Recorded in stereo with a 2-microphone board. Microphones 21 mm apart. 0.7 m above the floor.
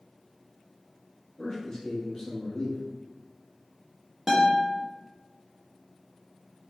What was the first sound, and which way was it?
A man speaking, 20° left (ahead or behind).